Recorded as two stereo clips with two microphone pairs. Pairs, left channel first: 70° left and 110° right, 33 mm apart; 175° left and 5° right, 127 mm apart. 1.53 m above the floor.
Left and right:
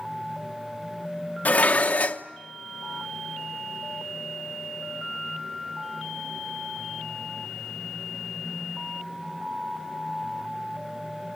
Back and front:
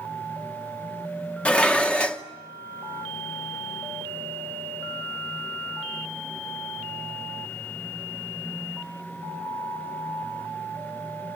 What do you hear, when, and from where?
1.4 s dishes clattering: 100° left, 0.9 m